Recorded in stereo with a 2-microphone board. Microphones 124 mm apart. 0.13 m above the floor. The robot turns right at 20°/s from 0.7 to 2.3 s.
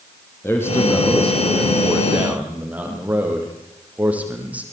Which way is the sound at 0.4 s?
160° left.